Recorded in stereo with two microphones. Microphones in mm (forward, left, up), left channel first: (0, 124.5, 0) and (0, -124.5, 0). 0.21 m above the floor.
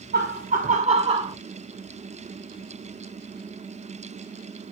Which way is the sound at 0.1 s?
40° right (ahead or behind).